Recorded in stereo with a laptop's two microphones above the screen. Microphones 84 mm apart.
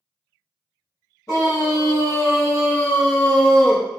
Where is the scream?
40° left (ahead or behind), 2 m; by 3.9 s centre (ahead or behind), 0.9 m.